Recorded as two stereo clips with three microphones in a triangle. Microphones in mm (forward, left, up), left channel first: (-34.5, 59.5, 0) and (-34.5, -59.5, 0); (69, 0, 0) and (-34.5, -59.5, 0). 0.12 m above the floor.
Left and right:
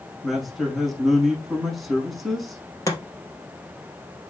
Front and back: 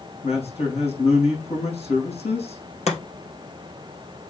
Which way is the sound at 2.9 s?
30° left.